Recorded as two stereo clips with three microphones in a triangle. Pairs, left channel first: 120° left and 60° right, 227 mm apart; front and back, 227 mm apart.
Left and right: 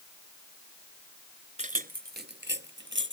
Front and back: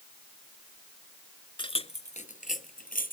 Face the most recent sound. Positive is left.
turn(degrees=-45)